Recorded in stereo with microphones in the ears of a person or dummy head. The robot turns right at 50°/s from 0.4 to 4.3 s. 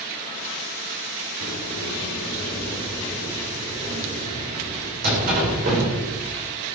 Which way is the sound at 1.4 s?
85° left.